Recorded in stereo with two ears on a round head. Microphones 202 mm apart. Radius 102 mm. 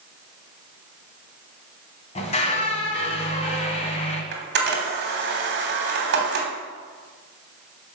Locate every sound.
2.1 s a squeak: 30° left (ahead or behind), 1.9 m
4.3 s a camera shutter: 50° right (ahead or behind), 3 m